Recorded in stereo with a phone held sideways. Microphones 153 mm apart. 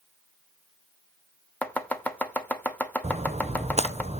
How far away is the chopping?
About 1.0 m.